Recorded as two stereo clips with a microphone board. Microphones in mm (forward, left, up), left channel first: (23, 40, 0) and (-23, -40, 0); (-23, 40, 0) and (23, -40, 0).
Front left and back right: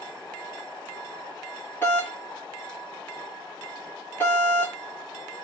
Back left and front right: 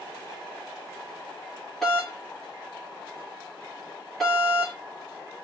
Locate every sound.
1.8 s a doorbell: 35° left, 1.4 m